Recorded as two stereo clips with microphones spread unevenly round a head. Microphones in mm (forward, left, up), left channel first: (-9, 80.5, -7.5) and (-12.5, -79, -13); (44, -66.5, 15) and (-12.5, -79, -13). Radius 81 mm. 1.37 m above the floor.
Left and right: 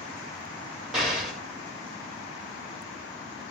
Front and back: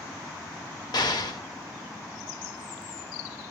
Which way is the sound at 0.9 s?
5° right.